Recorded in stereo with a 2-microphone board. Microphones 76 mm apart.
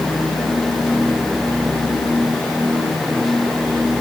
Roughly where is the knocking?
I don't hear knocking.